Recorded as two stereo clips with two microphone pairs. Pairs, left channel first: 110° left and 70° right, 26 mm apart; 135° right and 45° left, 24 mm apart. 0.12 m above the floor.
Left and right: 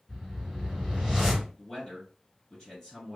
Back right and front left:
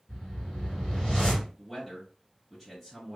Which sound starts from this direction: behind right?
A whoosh, at 0.1 s.